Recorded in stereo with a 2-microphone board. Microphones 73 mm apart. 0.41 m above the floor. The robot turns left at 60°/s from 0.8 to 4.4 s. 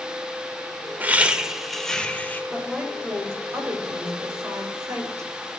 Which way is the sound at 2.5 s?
5° left.